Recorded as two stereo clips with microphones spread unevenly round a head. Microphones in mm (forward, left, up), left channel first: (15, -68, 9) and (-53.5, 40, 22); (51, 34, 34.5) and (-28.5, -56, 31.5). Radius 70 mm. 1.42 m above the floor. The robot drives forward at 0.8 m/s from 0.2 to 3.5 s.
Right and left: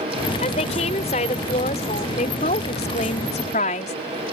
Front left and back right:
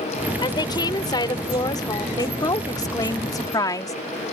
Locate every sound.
0.4 s a woman speaking: 5° right; by 4.0 s 10° right